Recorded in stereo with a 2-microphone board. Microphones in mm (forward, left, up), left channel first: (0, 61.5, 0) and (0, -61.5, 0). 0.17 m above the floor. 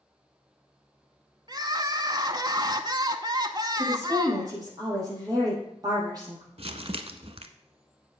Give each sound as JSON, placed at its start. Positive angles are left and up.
{"t": 1.5, "sound": "crying", "side_deg": -35, "distance_m": 0.7}
{"t": 3.8, "sound": "a woman speaking", "side_deg": -30, "distance_m": 6.0}
{"t": 6.6, "sound": "crumpling", "side_deg": -50, "distance_m": 0.8}